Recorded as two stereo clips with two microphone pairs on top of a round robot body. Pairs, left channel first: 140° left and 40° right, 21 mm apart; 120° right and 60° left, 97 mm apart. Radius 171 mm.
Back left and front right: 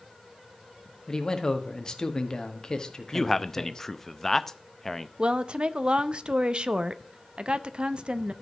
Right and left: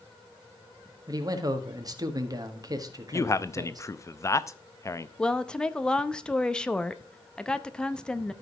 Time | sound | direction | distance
1.1 | a man speaking | 100° left | 1.8 m
3.1 | a man speaking | 165° right | 0.8 m
5.2 | a woman speaking | 45° right | 0.9 m